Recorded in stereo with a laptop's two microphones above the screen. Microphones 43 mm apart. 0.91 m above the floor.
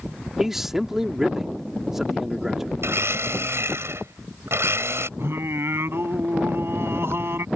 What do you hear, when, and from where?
0.4 s a man speaking: 10° right (ahead or behind)
2.8 s a blender: 75° right (ahead or behind)
5.2 s singing: 65° right (ahead or behind)